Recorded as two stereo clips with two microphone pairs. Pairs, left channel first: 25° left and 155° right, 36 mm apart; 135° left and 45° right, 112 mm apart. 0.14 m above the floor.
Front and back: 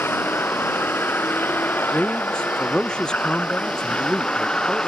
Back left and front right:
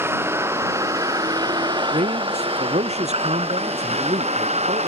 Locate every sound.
0.0 s a vehicle: 25° left; by 4.9 s 35° right
1.9 s a man speaking: 35° right